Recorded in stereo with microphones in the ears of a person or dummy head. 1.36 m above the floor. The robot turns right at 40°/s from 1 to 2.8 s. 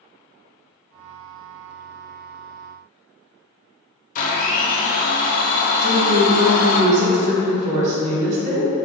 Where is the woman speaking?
40° right (ahead or behind), 0.8 m.